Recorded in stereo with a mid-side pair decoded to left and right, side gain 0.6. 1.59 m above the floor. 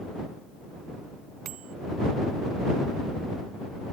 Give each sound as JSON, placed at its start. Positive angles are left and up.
{"t": 1.4, "sound": "a bicycle bell", "azimuth_deg": -60}